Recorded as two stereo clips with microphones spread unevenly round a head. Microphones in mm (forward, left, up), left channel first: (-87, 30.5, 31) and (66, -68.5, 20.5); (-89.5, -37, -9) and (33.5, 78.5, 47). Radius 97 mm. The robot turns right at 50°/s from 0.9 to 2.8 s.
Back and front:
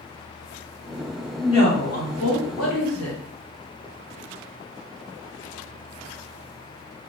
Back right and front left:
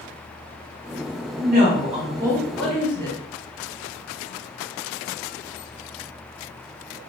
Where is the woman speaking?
75° left, 1.7 m; by 3.2 s 145° left, 1.7 m.